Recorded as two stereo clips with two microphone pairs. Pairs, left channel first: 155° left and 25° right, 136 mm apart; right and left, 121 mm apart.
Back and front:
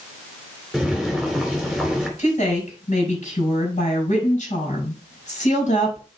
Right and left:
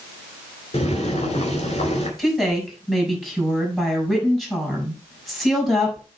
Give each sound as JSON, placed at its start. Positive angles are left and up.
{"t": 0.7, "sound": "boiling", "azimuth_deg": -115, "distance_m": 2.5}
{"t": 2.2, "sound": "a woman speaking", "azimuth_deg": -175, "distance_m": 4.0}